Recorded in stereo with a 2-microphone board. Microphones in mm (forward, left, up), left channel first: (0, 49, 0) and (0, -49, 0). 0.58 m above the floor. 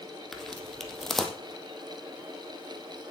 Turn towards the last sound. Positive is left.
turn(degrees=5)  # may be behind; listen again after turning